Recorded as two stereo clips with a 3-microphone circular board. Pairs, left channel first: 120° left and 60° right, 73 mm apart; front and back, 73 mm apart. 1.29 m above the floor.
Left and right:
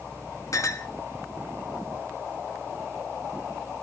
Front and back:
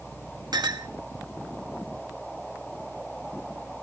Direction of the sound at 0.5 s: 160° left.